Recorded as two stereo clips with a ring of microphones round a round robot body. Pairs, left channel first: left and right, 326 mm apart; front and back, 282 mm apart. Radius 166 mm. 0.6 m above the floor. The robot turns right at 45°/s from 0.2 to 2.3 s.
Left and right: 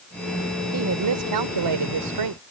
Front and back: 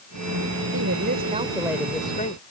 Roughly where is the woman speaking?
Behind right.